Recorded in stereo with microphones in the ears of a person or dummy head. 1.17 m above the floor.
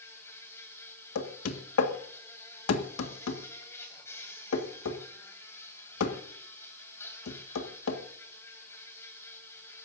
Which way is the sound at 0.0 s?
15° left (ahead or behind).